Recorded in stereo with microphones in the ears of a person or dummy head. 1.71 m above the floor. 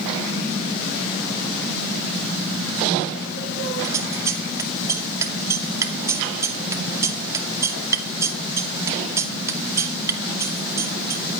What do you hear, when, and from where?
3.8 s scissors: 15° right (ahead or behind), 2 m